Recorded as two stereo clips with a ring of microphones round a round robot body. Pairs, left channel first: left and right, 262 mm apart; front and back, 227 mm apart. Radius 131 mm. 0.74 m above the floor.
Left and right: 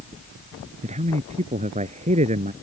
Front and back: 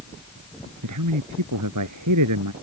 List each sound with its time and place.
0.8 s a man speaking: 155° right